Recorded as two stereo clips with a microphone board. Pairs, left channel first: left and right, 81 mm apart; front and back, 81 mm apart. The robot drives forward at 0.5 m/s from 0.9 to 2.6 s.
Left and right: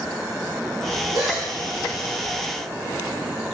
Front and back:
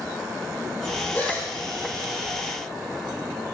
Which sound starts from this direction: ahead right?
A gasp, at 1.1 s.